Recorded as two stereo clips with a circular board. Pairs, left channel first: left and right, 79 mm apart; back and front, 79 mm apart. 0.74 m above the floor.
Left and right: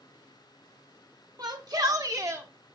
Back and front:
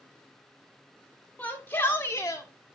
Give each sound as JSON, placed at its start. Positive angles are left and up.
{"t": 1.4, "sound": "a shout", "azimuth_deg": -115, "distance_m": 2.5}